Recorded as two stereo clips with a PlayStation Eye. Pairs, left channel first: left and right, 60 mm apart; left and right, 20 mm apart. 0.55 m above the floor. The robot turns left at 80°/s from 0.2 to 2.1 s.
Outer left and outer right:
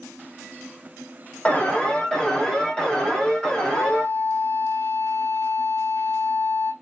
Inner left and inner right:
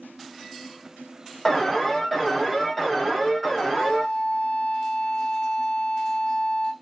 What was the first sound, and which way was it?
An alarm, 25° left (ahead or behind).